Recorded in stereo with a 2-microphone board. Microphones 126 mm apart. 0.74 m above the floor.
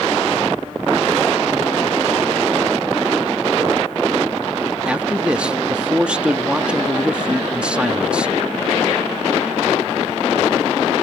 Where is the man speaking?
10° right (ahead or behind).